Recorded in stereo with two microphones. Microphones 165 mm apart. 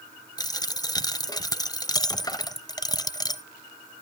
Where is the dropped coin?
25° left (ahead or behind), 0.6 m.